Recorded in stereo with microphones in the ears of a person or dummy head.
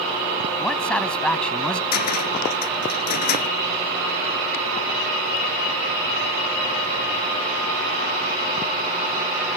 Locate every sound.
0.6 s a man speaking: 10° left (ahead or behind)
1.9 s a cupboard door: 55° left (ahead or behind)